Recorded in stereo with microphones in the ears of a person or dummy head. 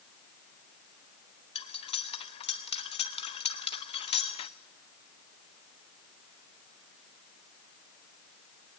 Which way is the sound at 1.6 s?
30° left (ahead or behind).